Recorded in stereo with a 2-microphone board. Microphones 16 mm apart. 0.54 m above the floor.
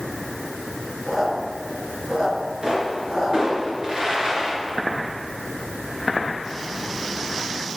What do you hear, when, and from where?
1.1 s a squeak: 45° right (ahead or behind), 3.5 m
2.6 s a pop: 50° right (ahead or behind), 3.5 m